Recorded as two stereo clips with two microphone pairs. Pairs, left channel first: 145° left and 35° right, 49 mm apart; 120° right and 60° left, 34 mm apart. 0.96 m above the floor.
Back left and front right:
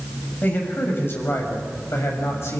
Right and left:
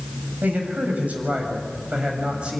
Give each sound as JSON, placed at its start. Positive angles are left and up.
{"t": 0.4, "sound": "a man speaking", "azimuth_deg": 95, "distance_m": 7.0}